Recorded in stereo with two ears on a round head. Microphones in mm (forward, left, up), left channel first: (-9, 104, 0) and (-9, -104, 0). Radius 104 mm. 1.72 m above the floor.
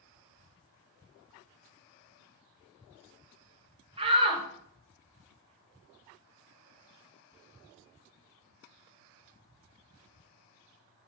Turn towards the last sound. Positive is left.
turn(degrees=-25)  # may be behind; listen again after turning